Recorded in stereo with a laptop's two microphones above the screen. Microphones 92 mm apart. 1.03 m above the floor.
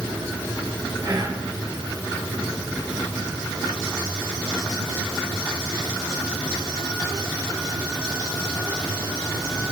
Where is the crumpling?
I don't hear crumpling.